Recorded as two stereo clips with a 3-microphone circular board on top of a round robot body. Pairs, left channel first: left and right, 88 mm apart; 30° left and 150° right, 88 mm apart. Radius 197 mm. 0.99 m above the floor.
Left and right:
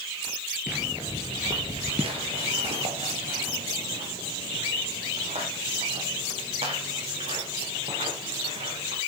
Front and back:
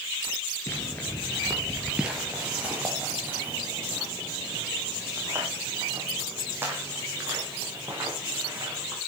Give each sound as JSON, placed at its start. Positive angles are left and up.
{"t": 0.7, "sound": "footsteps", "azimuth_deg": -5, "distance_m": 1.0}